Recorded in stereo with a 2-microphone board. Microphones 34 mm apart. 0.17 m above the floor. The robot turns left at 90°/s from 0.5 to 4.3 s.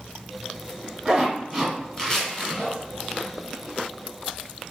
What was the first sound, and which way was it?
A zipper, 15° right (ahead or behind).